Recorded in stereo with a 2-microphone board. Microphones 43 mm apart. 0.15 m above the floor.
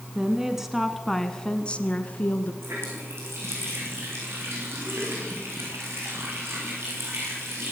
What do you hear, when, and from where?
0.1 s a woman speaking: 20° right (ahead or behind), 1.5 m; by 2.5 s 40° left (ahead or behind), 1.8 m
2.6 s a running tap: 75° right (ahead or behind), 8 m